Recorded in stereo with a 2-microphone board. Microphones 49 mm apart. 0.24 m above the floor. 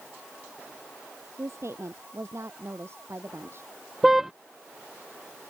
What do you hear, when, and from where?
1.4 s a woman speaking: 65° right (ahead or behind); by 3.7 s 50° right (ahead or behind)
4.0 s a car horn: 10° right (ahead or behind)